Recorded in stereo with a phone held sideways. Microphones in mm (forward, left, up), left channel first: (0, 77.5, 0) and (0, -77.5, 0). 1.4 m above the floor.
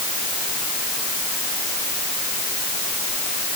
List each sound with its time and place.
Only background noise.